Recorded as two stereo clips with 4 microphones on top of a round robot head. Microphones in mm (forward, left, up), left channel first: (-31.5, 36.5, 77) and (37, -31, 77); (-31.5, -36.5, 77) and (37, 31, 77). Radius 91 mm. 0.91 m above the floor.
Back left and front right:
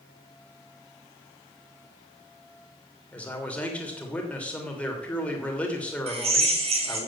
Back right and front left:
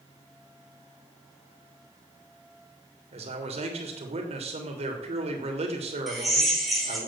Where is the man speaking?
60° left, 3 m.